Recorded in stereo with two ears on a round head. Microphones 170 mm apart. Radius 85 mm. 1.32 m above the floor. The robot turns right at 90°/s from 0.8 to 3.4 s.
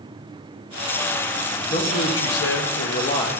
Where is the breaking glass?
I don't hear breaking glass.